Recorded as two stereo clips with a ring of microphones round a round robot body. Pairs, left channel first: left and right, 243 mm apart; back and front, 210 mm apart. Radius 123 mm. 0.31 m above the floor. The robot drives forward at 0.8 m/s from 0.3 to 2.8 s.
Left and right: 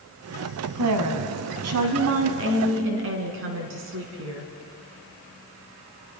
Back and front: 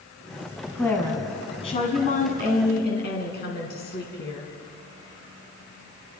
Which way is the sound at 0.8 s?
95° right.